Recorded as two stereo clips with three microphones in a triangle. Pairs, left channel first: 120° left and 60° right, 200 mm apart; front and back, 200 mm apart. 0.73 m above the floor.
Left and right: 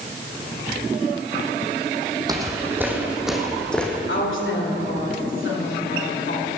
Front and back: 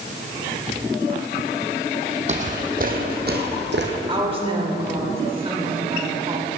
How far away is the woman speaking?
About 2.5 m.